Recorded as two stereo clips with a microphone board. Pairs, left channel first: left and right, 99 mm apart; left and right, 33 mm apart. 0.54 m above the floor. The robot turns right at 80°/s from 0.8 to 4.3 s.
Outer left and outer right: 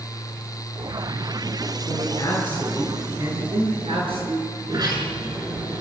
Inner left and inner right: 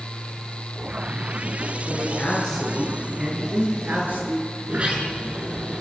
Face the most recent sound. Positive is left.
turn(degrees=-40)  # may be behind; listen again after turning